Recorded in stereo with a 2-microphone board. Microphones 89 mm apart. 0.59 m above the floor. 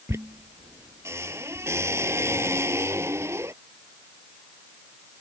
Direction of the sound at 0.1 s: 30° right (ahead or behind).